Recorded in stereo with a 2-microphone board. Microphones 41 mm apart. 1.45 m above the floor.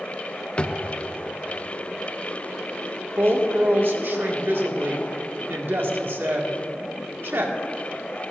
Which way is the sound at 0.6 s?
30° left (ahead or behind).